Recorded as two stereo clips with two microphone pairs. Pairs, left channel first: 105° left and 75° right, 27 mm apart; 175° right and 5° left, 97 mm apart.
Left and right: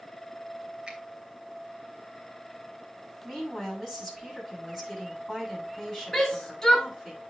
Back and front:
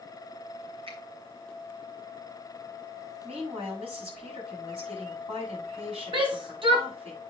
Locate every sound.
0.9 s a finger snap: 15° right, 2.5 m
3.2 s a woman speaking: 15° left, 7 m
6.1 s a shout: 30° left, 2.5 m